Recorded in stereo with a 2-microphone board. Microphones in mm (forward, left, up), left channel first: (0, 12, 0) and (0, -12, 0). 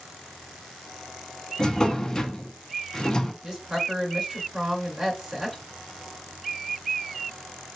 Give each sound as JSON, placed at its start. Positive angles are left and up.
{"t": 1.6, "sound": "a drawer", "side_deg": 30, "distance_m": 0.8}
{"t": 3.4, "sound": "a woman speaking", "side_deg": -20, "distance_m": 2.5}